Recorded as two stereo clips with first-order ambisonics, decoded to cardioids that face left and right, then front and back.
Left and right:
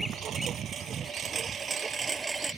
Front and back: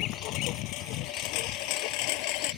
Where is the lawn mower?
35° right; by 2.6 s 5° right.